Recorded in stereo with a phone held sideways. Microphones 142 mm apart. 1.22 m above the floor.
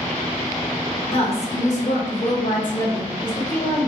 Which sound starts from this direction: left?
A woman speaking, at 1.1 s.